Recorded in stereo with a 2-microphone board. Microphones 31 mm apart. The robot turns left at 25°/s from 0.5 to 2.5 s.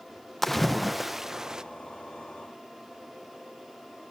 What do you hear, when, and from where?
0.4 s a splash: 5° left (ahead or behind), 0.8 m; by 1.6 s 25° right (ahead or behind), 0.8 m